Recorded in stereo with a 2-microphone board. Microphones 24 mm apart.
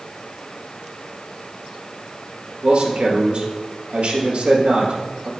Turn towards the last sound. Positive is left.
turn(degrees=-60)  # may be behind; listen again after turning